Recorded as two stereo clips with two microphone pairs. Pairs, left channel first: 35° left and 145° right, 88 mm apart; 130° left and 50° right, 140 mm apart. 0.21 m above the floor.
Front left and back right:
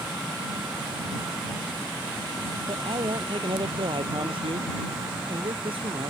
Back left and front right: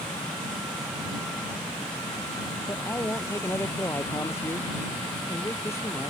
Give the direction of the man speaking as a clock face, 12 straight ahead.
5 o'clock.